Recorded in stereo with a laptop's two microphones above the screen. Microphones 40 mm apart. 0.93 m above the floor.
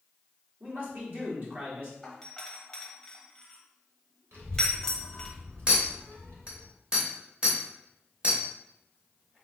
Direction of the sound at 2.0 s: 15° left (ahead or behind).